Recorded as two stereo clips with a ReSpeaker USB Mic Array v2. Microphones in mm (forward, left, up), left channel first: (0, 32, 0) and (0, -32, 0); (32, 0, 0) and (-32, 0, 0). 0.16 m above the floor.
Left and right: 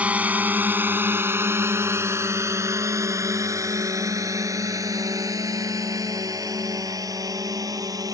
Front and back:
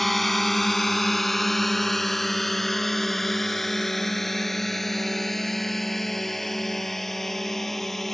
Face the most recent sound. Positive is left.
turn(degrees=-90)